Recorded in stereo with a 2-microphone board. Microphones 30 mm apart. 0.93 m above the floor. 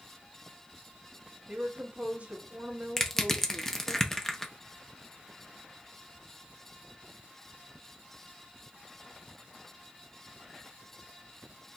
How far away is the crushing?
About 0.7 m.